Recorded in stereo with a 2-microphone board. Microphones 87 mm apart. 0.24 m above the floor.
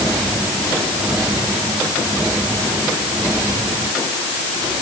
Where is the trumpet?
I don't hear a trumpet.